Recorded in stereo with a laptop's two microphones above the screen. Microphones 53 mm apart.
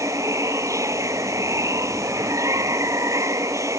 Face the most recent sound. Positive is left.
turn(degrees=-75)  # may be behind; listen again after turning